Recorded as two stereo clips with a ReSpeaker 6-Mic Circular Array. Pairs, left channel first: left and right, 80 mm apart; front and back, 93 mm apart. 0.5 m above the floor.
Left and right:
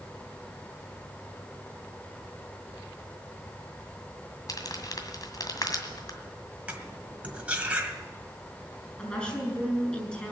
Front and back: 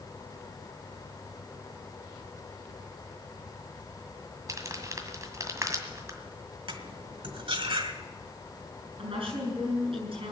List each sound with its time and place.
4.5 s crumpling: 125° left, 1.9 m
6.7 s cutlery clinking: 165° right, 1.6 m
9.0 s a woman speaking: 165° left, 8 m